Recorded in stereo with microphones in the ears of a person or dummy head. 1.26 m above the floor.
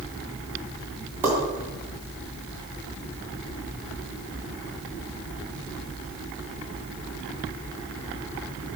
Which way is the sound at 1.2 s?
10° right (ahead or behind).